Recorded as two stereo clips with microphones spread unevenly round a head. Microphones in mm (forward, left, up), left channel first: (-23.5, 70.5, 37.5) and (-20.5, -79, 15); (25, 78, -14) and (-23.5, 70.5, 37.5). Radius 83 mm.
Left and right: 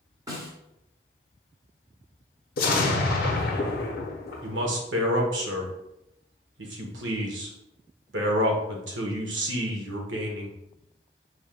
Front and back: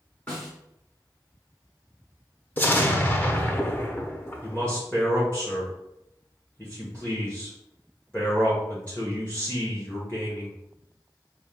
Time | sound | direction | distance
0.3 | a snare drum | 150° right | 1.1 m
2.6 | an explosion | 90° left | 0.8 m
4.4 | a man speaking | 85° right | 1.0 m